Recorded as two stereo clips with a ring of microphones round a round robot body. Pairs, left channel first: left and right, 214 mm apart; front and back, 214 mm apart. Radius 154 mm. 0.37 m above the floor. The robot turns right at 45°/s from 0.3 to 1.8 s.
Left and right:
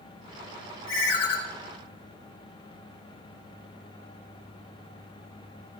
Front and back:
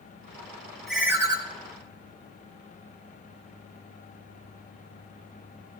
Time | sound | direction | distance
0.9 | a ringtone | 90° left | 1.6 m